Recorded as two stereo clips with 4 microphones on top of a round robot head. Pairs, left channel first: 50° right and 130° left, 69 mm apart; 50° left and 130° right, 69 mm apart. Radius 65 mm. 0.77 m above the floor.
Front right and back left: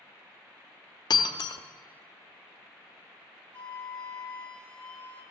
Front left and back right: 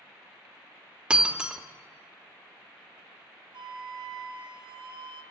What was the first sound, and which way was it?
Breaking glass, 55° right.